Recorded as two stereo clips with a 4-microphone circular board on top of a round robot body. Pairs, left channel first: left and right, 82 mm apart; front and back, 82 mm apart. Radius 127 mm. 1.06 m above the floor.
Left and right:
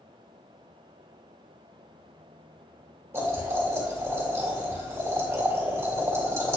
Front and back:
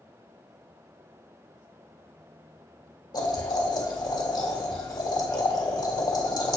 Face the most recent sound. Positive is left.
turn(degrees=-35)